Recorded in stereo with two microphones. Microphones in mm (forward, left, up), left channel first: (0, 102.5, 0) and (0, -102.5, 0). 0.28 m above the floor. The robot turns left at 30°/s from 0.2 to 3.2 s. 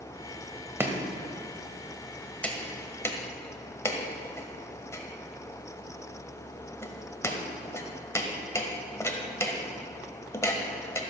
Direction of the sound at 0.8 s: 10° right (ahead or behind).